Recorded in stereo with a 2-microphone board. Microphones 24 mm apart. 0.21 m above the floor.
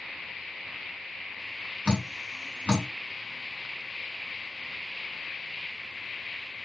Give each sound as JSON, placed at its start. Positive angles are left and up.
{"t": 1.9, "sound": "dripping", "side_deg": 40, "distance_m": 2.5}